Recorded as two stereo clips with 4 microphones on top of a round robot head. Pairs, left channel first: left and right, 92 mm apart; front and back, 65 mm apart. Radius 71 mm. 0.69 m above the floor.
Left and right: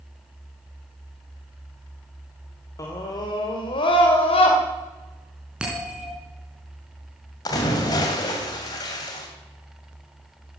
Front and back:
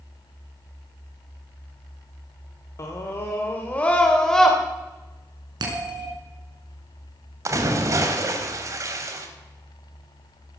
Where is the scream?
40° left, 2.5 m; by 4.6 s 85° left, 3 m.